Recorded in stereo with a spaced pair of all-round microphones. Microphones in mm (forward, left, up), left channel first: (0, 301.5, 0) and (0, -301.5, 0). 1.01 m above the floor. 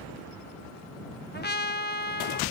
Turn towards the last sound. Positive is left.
turn(degrees=15)  # may be behind; listen again after turning